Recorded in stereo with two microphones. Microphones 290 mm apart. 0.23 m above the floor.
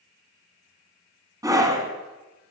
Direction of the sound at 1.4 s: 10° right (ahead or behind).